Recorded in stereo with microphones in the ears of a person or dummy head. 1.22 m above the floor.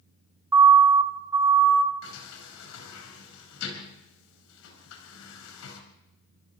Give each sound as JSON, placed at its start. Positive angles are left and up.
{"t": 0.5, "sound": "a siren", "side_deg": -15, "distance_m": 2.5}
{"t": 2.0, "sound": "a sliding door", "side_deg": 80, "distance_m": 5.0}